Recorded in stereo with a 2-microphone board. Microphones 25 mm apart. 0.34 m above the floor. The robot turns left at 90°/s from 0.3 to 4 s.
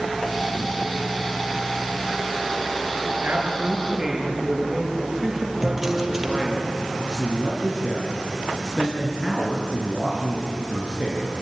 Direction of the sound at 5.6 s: 5° right (ahead or behind).